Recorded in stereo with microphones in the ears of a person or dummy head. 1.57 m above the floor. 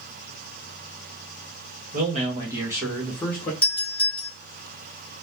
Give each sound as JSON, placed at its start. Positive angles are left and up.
{"t": 1.9, "sound": "a man speaking", "side_deg": -45, "distance_m": 1.2}
{"t": 3.6, "sound": "a doorbell", "side_deg": 10, "distance_m": 1.5}